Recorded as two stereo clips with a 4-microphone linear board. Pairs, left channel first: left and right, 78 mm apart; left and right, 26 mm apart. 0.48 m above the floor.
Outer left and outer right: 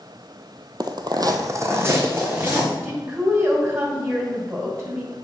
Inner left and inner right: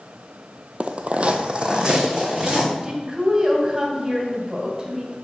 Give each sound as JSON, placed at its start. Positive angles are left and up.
{"t": 0.8, "sound": "footsteps", "side_deg": -55, "distance_m": 0.8}
{"t": 2.8, "sound": "a woman speaking", "side_deg": -30, "distance_m": 2.5}